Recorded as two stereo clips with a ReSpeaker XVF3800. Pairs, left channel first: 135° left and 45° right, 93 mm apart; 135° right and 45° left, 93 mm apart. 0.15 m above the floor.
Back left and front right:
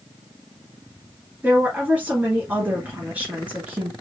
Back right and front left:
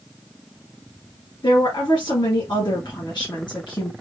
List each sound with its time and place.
1.4 s a woman speaking: 120° right, 2.5 m